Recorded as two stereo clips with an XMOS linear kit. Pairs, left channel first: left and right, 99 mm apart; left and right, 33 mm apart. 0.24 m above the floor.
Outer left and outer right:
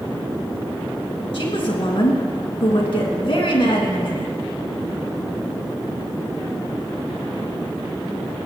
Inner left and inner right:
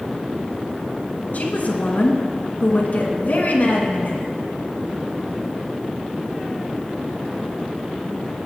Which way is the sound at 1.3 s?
60° left (ahead or behind).